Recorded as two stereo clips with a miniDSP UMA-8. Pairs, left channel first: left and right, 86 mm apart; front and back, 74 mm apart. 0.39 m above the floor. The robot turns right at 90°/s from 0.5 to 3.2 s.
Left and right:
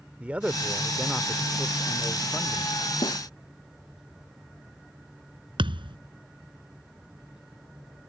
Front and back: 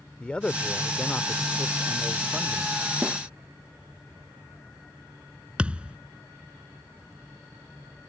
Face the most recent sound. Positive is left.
turn(degrees=-105)